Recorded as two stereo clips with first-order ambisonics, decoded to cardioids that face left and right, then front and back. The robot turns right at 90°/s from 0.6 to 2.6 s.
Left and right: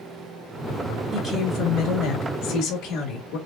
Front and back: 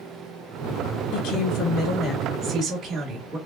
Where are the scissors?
No scissors in this recording.